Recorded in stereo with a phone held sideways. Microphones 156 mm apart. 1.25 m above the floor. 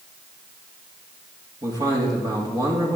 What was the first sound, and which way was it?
A man speaking, 25° right (ahead or behind).